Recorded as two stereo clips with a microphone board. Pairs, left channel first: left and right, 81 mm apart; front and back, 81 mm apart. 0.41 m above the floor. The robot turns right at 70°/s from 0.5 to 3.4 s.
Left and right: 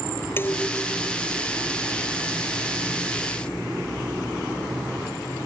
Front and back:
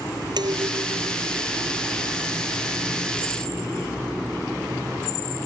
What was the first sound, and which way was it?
Dishes clattering, 155° left.